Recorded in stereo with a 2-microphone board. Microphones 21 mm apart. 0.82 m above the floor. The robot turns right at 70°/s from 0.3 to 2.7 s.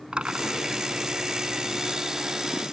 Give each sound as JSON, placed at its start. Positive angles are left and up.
{"t": 0.1, "sound": "a drill", "azimuth_deg": -65}